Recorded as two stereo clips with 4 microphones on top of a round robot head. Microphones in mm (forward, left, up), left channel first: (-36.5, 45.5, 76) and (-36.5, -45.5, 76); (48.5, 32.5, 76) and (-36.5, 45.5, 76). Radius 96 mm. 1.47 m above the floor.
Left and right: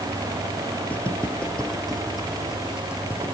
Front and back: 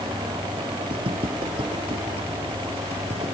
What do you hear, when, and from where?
0.9 s footsteps: 160° left, 2.5 m; by 3.4 s 160° right, 2.5 m